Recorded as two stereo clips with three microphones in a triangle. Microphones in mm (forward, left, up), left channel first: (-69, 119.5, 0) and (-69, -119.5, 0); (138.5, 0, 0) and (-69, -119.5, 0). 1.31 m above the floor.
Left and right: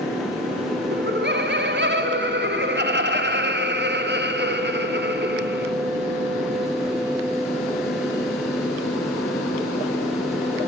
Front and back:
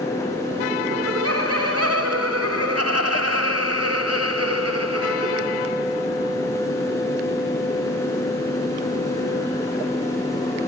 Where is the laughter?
135° right, 3.5 m.